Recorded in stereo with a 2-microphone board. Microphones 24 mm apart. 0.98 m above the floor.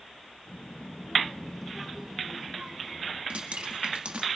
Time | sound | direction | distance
0.5 | a child speaking | 70° left (ahead or behind) | 1.0 m
3.3 | dripping | 50° right (ahead or behind) | 1.7 m